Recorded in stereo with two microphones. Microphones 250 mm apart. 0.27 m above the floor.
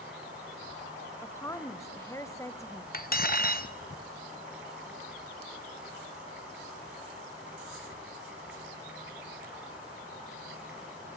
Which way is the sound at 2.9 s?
40° left (ahead or behind).